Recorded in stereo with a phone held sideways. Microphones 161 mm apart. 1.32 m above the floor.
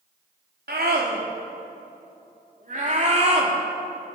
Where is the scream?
85° right, 4 m; by 3.5 s 40° right (ahead or behind), 3.5 m.